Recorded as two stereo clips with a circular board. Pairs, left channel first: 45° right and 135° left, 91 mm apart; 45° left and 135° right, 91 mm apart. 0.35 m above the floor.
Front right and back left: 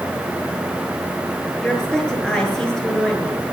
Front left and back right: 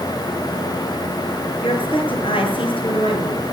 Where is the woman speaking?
40° left, 5.5 m.